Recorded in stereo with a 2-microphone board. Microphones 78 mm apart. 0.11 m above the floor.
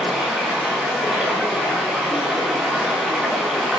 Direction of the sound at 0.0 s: 5° right (ahead or behind).